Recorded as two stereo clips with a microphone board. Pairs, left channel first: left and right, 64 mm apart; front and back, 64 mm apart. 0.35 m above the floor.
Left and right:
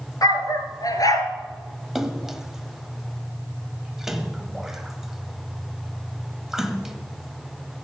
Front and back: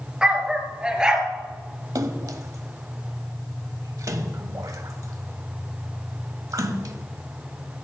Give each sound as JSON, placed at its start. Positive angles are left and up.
{"t": 0.2, "sound": "a dog barking", "azimuth_deg": 105, "distance_m": 1.7}
{"t": 1.9, "sound": "a splash", "azimuth_deg": -175, "distance_m": 1.0}